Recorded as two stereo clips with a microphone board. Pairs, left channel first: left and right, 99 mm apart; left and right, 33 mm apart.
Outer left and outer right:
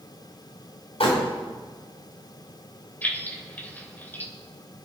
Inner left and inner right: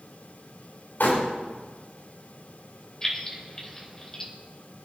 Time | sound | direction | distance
1.0 | crumpling | 75° left (ahead or behind) | 7.5 m
3.0 | keys jangling | 20° left (ahead or behind) | 3 m